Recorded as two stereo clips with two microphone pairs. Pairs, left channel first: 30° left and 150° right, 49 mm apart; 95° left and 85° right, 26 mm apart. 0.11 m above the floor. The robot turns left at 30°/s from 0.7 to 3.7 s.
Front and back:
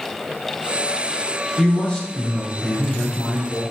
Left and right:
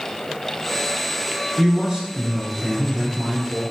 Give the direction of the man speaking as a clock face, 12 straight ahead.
1 o'clock.